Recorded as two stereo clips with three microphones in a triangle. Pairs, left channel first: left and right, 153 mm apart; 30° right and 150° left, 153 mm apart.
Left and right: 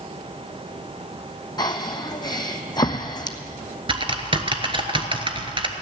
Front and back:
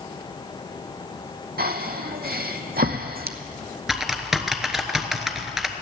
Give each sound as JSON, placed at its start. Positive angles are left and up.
{"t": 1.6, "sound": "breathing", "azimuth_deg": 150, "distance_m": 0.9}
{"t": 3.9, "sound": "typing on a keyboard", "azimuth_deg": -125, "distance_m": 1.0}